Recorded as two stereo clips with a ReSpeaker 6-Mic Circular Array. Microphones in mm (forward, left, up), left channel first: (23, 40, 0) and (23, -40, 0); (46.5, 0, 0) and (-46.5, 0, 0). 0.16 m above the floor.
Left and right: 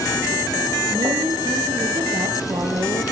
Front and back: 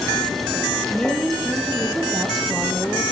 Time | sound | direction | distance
0.9 | a woman speaking | 80° right | 4 m